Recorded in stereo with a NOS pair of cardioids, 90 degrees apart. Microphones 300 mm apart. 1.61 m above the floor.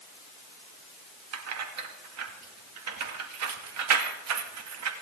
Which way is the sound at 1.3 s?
60° right.